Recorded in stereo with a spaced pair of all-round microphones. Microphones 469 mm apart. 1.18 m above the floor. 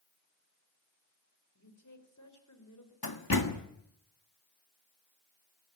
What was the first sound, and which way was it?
A woman speaking, 40° left (ahead or behind).